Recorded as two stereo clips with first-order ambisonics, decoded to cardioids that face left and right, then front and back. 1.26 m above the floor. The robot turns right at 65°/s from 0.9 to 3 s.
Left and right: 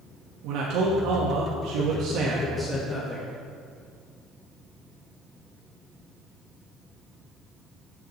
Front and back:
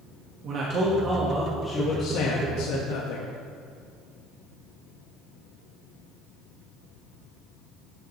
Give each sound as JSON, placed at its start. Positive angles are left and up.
{"t": 0.4, "sound": "a man speaking", "azimuth_deg": -125, "distance_m": 1.5}